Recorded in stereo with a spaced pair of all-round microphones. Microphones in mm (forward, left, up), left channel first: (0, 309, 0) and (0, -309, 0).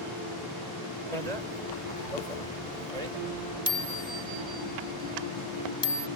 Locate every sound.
1.1 s a bicycle bell: 80° right; by 6.1 s 30° right (ahead or behind)